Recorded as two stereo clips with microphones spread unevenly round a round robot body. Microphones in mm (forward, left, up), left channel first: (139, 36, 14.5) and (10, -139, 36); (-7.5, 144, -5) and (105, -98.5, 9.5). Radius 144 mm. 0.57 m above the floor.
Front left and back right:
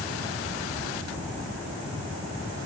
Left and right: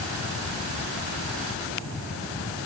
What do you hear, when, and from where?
Only background noise.